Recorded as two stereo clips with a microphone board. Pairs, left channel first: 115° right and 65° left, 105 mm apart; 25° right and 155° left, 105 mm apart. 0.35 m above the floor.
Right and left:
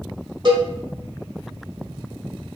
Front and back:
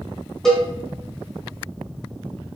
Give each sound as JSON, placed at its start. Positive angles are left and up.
{"t": 0.5, "sound": "a cowbell", "azimuth_deg": 60, "distance_m": 1.1}